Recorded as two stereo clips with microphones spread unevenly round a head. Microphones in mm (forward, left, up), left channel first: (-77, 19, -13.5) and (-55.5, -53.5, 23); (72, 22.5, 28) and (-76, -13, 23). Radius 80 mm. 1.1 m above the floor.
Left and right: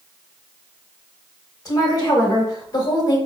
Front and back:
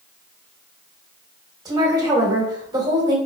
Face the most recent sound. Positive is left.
turn(degrees=130)